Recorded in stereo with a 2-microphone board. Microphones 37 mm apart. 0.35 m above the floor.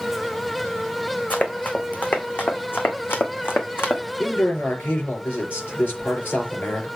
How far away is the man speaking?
About 4.5 m.